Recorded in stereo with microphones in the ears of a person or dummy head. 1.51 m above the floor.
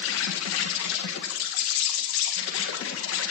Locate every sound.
0.0 s an insect: 70° left (ahead or behind), 2 m